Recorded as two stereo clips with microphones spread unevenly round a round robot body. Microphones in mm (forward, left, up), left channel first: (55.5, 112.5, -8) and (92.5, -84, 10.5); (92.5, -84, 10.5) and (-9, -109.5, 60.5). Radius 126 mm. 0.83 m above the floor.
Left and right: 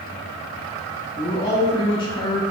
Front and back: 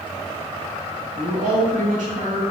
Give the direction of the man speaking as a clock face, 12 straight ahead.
6 o'clock.